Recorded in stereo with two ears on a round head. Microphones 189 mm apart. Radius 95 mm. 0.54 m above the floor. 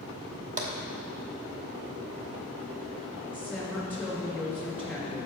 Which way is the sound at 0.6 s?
35° right (ahead or behind).